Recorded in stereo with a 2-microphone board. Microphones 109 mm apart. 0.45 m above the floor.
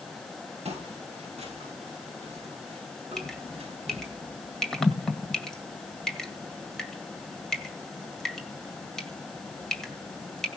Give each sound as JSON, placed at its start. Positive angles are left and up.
{"t": 0.7, "sound": "footsteps", "side_deg": -85, "distance_m": 8.5}
{"t": 3.2, "sound": "dripping", "side_deg": 5, "distance_m": 1.9}